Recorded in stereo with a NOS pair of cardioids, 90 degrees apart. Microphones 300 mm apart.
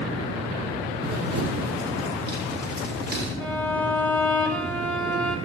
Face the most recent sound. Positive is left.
turn(degrees=5)